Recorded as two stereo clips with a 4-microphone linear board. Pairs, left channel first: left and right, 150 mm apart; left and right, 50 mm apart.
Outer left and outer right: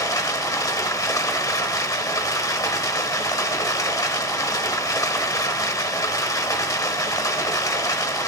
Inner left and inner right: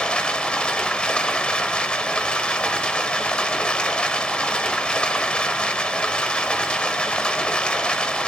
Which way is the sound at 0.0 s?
25° left (ahead or behind).